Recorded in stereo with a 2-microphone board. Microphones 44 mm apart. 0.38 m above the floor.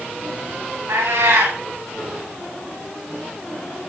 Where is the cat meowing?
75° right (ahead or behind), 7 m.